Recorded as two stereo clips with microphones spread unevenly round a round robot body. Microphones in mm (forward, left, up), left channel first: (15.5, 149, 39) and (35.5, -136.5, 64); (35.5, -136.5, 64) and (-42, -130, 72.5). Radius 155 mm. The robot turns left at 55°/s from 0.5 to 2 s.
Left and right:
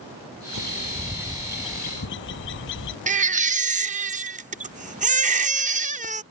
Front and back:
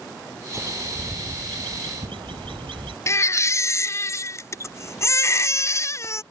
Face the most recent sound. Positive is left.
turn(degrees=-25)